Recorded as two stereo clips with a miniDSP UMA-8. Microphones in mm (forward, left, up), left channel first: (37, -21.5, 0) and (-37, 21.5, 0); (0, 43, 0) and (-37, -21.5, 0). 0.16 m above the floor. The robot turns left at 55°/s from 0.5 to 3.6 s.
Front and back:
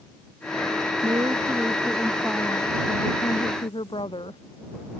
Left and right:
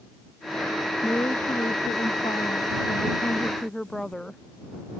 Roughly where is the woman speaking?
Behind left.